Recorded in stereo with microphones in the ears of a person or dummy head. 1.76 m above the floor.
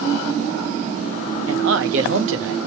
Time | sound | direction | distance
1.5 | a man speaking | 65° right (ahead or behind) | 0.7 m